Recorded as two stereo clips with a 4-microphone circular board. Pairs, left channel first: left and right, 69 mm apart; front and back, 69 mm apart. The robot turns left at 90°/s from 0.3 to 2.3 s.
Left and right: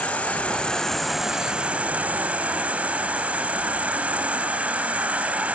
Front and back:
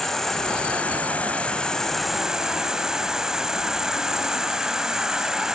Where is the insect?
70° left, 1.1 m; by 5.6 s 110° right, 1.1 m.